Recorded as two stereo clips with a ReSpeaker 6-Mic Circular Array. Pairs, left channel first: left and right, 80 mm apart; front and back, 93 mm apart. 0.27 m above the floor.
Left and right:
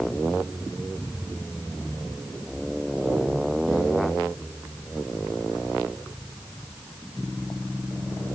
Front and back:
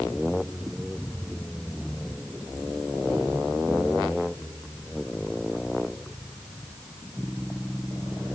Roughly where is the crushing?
No crushing in this recording.